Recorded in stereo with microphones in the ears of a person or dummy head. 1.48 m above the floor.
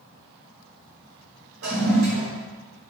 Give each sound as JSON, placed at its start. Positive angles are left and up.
{"t": 1.6, "sound": "a toilet flushing", "side_deg": -80, "distance_m": 1.2}